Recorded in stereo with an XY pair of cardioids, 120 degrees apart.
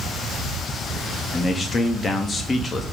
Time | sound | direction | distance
1.3 | a man speaking | 25° left | 1.4 m